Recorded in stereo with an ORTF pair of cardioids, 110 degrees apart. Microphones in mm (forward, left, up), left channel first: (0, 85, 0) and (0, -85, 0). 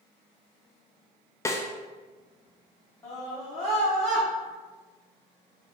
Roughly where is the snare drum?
Ahead.